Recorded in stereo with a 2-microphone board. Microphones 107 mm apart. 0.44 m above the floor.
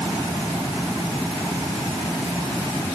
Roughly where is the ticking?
No ticking in this recording.